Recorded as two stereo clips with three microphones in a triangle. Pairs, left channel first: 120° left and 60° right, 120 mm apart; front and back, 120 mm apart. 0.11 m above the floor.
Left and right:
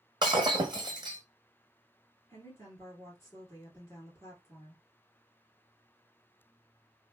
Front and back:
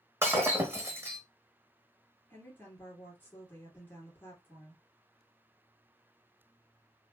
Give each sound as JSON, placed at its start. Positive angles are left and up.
{"t": 0.2, "sound": "breaking glass", "azimuth_deg": -110, "distance_m": 0.9}
{"t": 2.3, "sound": "a woman speaking", "azimuth_deg": 65, "distance_m": 2.5}